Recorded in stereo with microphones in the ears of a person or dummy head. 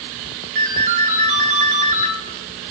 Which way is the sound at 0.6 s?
45° right (ahead or behind).